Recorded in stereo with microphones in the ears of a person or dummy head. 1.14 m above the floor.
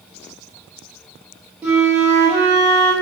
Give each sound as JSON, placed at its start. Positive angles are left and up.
{"t": 1.6, "sound": "a flute", "side_deg": -10, "distance_m": 0.6}